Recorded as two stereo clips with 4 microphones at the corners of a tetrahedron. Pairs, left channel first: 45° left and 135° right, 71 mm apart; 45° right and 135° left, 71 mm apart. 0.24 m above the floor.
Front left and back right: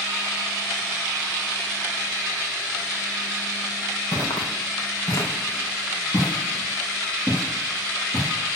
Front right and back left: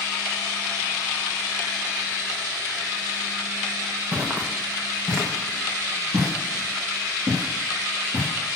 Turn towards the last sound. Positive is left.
turn(degrees=105)